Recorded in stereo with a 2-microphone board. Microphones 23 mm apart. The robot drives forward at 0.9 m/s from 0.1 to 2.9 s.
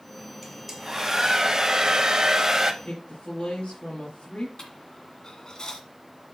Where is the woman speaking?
70° left (ahead or behind), 5 m.